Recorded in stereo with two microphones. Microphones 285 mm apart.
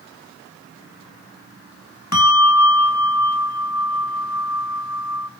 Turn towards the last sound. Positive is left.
turn(degrees=70)  # may be behind; listen again after turning